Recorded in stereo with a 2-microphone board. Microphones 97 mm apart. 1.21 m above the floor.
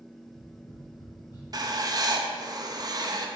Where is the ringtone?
I don't hear a ringtone.